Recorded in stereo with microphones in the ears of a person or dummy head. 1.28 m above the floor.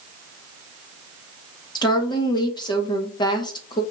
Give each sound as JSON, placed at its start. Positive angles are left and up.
{"t": 1.8, "sound": "a woman speaking", "side_deg": 30, "distance_m": 1.1}